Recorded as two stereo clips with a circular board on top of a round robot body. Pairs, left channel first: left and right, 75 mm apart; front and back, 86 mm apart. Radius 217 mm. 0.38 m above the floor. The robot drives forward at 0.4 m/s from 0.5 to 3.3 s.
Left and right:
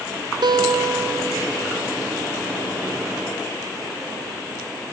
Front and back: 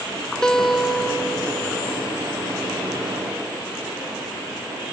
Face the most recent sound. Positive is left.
turn(degrees=-140)